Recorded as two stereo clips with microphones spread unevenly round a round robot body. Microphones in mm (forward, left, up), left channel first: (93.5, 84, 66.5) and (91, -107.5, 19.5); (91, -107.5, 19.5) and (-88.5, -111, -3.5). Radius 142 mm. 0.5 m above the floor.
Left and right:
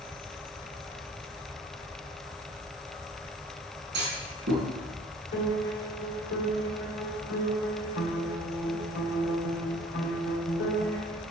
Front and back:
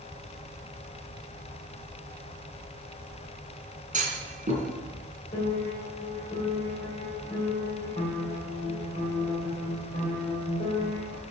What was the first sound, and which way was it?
A clunk, 130° right.